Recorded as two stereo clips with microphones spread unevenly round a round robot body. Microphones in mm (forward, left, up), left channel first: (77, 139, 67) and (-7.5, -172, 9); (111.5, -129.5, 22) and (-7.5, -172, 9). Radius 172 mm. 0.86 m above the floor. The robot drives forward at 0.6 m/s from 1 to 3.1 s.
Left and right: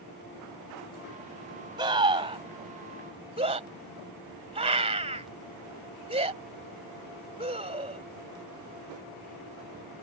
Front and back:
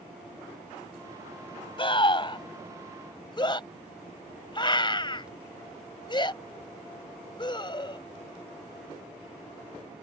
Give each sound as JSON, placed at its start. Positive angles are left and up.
{"t": 1.8, "sound": "a scream", "azimuth_deg": -30}